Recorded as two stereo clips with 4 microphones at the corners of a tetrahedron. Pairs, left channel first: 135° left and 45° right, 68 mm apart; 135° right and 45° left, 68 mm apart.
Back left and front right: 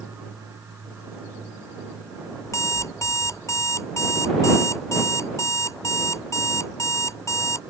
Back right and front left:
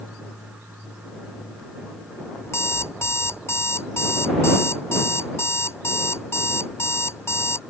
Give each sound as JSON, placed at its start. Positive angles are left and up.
{"t": 2.4, "sound": "an alarm clock", "azimuth_deg": 175}